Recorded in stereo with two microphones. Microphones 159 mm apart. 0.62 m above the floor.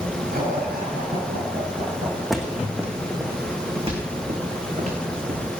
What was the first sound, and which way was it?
Laughter, 75° right (ahead or behind).